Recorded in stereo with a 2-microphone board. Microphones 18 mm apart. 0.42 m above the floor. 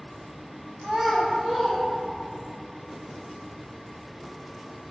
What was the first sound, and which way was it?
A child speaking, 10° right (ahead or behind).